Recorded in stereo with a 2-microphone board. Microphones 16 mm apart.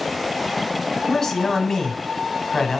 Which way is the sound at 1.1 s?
30° left (ahead or behind).